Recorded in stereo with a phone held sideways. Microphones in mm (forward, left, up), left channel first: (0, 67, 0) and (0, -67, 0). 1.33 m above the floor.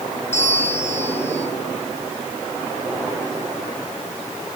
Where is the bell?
60° left (ahead or behind), 4.5 m.